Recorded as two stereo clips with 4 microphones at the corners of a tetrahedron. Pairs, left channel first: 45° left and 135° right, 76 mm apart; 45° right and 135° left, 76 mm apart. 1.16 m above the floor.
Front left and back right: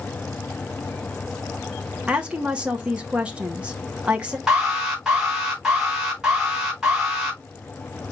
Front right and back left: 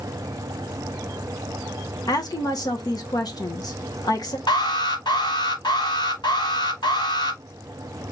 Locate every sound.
2.1 s a woman speaking: 60° right, 1.0 m
4.5 s an alarm: 50° right, 2.5 m